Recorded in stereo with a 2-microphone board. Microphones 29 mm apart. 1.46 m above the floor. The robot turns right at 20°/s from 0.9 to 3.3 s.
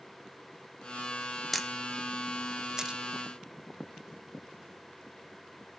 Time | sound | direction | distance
1.5 | a camera shutter | 5° left (ahead or behind) | 1.0 m